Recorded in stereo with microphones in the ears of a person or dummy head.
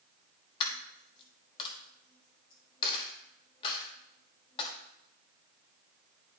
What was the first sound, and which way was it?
A dropped coin, 30° left (ahead or behind).